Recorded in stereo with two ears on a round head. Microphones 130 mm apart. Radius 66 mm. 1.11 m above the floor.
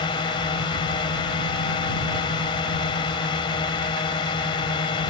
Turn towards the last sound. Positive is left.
turn(degrees=30)  # may be behind; listen again after turning